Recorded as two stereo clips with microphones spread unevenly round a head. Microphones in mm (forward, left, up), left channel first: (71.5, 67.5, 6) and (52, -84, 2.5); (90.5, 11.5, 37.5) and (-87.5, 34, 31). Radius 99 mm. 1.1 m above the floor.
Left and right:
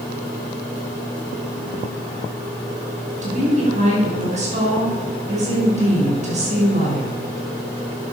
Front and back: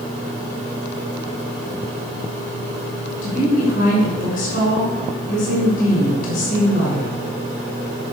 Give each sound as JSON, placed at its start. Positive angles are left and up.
{"t": 3.2, "sound": "a woman speaking", "azimuth_deg": -55, "distance_m": 5.5}